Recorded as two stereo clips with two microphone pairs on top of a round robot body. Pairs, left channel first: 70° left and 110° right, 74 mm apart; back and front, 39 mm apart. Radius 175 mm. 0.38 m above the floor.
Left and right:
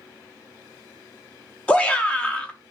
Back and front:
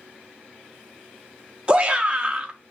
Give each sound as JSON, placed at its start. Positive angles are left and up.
{"t": 1.7, "sound": "a shout", "azimuth_deg": 50, "distance_m": 0.8}